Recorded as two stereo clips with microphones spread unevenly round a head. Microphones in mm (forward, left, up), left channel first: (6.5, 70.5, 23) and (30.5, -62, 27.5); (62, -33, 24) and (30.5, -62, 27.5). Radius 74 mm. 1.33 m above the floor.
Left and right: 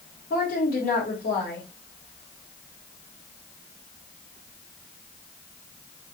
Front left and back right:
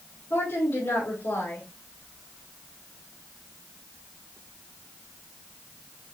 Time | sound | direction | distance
0.3 | a woman speaking | 80° left | 3 m